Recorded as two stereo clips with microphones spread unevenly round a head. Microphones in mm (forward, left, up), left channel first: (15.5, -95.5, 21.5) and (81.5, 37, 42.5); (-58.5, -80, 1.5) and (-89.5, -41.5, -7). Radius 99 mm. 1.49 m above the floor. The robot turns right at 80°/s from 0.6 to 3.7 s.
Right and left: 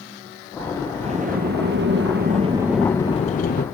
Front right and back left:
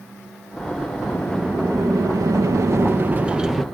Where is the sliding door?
15° left, 2 m; by 3.6 s 140° right, 2 m.